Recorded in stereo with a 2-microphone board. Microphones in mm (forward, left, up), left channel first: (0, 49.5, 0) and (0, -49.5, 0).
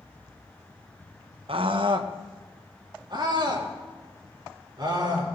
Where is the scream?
70° right (ahead or behind), 0.9 m; by 5.3 s 45° right (ahead or behind), 5.5 m.